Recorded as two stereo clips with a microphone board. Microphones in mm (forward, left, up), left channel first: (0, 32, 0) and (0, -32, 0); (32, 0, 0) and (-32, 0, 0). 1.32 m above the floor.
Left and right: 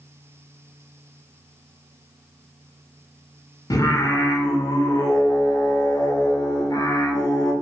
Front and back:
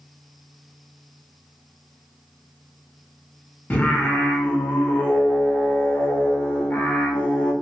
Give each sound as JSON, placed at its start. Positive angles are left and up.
{"t": 3.7, "sound": "singing", "azimuth_deg": 65, "distance_m": 0.6}